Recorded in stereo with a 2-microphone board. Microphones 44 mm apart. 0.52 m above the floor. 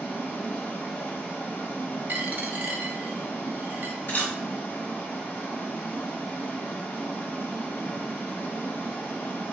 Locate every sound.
0.0 s running water: 60° left (ahead or behind), 1.5 m
2.1 s a dropped coin: 45° right (ahead or behind), 0.6 m
4.1 s a camera shutter: 60° left (ahead or behind), 2 m